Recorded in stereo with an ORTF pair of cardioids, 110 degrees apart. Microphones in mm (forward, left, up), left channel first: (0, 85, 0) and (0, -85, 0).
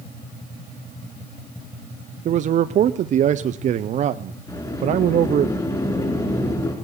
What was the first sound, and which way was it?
A man speaking, 45° right.